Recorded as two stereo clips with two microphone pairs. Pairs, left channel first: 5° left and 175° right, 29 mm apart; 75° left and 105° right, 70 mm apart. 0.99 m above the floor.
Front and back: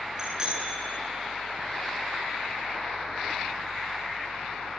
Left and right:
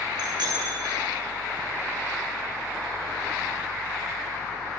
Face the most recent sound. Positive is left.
turn(degrees=-105)